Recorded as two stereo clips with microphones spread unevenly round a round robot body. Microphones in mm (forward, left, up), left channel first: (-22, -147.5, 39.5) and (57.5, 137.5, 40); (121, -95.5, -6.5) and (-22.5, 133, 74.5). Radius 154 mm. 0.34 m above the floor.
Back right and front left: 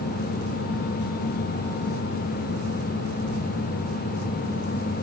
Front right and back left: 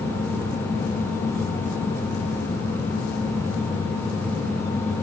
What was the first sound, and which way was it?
Only background noise.